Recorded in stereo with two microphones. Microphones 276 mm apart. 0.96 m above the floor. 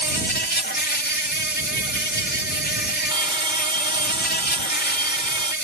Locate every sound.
0.0 s an insect: 35° left (ahead or behind)
3.1 s a bell: 20° right (ahead or behind)